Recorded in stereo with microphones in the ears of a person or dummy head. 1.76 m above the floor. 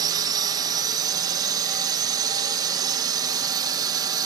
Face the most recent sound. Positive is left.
turn(degrees=-20)  # may be behind; listen again after turning